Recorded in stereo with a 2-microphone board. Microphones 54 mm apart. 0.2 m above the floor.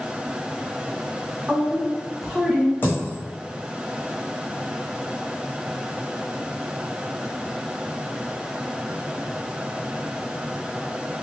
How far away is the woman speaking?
About 1.5 m.